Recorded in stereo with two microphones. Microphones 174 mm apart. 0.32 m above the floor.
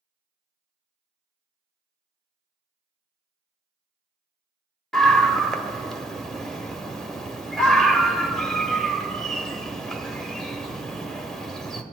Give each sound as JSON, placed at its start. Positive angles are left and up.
{"t": 4.9, "sound": "a scream", "side_deg": 0, "distance_m": 0.9}